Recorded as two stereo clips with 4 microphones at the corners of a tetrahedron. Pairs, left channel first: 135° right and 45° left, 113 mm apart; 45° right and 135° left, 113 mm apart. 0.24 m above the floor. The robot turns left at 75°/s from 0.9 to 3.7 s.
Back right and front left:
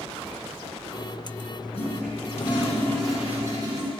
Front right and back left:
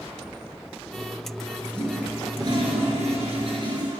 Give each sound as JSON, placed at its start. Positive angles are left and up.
{"t": 1.7, "sound": "a toilet flushing", "azimuth_deg": -125, "distance_m": 3.5}